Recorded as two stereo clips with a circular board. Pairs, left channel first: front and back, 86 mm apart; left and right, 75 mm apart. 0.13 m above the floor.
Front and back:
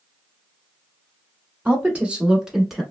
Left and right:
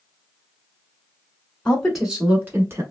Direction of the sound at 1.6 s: 145° left.